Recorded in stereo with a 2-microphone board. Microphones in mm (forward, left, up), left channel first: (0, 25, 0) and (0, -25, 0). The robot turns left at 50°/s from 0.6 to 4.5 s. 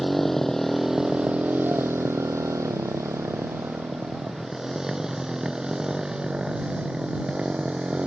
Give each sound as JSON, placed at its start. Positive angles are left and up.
{"t": 0.0, "sound": "a motorcycle", "side_deg": 5}